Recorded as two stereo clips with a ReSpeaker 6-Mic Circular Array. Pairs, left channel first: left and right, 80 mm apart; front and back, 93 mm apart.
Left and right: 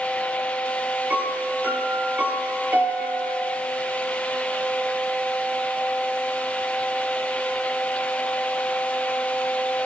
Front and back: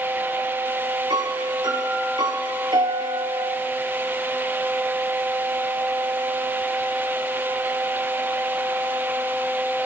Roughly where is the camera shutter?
No camera shutter in this recording.